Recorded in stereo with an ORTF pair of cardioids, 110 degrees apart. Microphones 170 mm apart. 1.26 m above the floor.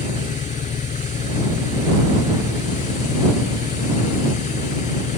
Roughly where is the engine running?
Ahead left.